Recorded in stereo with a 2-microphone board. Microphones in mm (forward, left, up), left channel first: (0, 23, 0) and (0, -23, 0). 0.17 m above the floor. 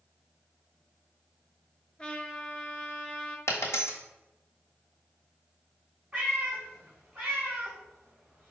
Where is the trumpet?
20° left (ahead or behind), 0.9 m.